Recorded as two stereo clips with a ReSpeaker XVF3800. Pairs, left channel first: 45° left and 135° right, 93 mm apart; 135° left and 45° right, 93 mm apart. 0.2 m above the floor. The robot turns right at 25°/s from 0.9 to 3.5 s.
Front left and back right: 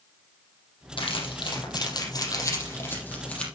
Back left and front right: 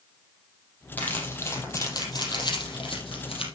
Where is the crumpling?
60° left, 5 m; by 3.5 s 125° left, 5 m.